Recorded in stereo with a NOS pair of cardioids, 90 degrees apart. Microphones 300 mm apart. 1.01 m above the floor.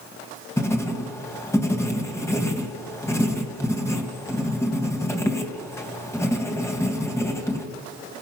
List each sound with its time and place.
0.6 s writing: 10° left, 3 m